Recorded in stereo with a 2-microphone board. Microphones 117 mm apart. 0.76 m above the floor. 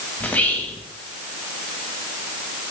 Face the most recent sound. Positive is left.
turn(degrees=15)  # may be behind; listen again after turning